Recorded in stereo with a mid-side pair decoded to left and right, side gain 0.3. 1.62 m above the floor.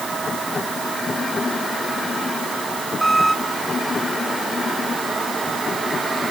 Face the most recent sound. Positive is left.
turn(degrees=0)